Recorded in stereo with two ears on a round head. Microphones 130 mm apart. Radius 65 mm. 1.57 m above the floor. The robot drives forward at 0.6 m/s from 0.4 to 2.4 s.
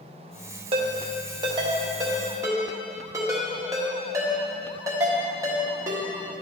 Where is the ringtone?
40° right (ahead or behind), 0.9 m; by 6.4 s 20° right (ahead or behind), 1.5 m.